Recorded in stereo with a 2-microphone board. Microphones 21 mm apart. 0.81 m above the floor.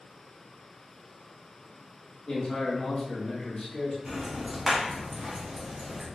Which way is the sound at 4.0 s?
25° right (ahead or behind).